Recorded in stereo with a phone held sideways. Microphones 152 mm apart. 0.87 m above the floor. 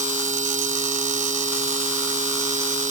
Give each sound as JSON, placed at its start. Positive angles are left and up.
{"t": 0.0, "sound": "a machine running", "side_deg": -55}